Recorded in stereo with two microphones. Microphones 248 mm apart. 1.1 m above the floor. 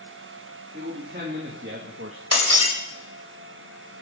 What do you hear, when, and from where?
0.7 s a man speaking: 35° right (ahead or behind), 3.5 m; by 2.2 s 60° right (ahead or behind), 1.6 m
2.3 s breaking glass: 85° right, 3 m